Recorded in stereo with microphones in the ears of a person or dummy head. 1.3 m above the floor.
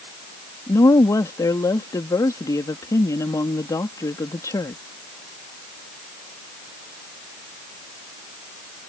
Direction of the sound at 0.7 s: 15° left (ahead or behind).